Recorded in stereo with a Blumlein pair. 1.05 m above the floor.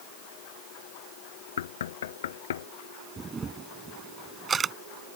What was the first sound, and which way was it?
Knocking, 60° left.